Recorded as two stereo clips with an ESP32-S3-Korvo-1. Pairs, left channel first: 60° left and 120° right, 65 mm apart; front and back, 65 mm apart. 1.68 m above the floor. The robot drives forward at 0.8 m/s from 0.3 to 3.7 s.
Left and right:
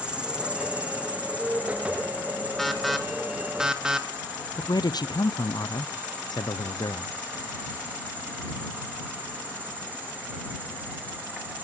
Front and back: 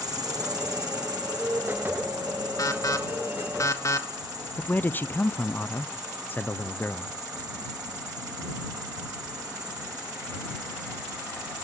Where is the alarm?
30° right, 2.5 m; by 4.1 s 40° right, 1.9 m.